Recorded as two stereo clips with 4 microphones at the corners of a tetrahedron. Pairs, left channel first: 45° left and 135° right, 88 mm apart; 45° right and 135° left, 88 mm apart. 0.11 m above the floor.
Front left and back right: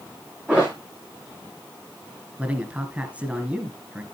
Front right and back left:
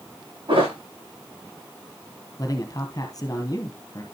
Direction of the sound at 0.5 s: 150° left.